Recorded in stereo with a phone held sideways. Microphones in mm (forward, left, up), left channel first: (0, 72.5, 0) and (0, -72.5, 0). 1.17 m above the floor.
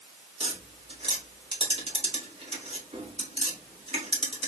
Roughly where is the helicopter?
No helicopter in this recording.